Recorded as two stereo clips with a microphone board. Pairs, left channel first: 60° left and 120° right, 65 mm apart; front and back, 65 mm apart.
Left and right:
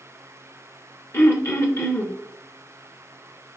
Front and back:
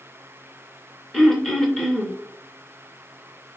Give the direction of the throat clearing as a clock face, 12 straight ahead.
9 o'clock.